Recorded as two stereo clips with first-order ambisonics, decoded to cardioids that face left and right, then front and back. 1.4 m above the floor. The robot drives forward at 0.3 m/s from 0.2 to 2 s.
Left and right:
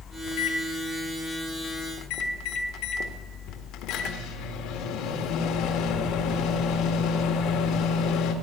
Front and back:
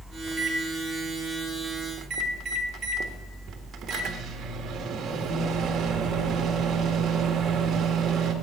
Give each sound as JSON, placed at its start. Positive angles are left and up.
{"t": 0.3, "sound": "a microwave", "azimuth_deg": 100, "distance_m": 1.6}